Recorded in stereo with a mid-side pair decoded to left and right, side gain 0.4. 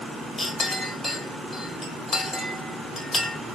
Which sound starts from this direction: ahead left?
A clink, at 0.4 s.